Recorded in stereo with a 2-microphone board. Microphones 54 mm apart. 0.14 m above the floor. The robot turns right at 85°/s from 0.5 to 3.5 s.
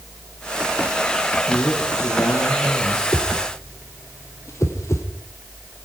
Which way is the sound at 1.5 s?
25° left.